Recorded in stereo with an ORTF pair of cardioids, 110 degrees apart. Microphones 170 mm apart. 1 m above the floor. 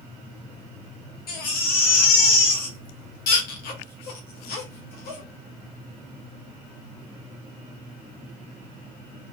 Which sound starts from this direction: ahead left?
A baby crying, at 1.3 s.